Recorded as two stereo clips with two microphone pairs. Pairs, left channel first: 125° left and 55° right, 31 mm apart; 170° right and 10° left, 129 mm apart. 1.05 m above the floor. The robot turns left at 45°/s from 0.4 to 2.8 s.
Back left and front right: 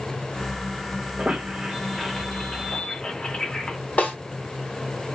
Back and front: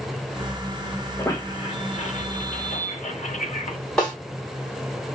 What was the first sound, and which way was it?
A squeak, 95° right.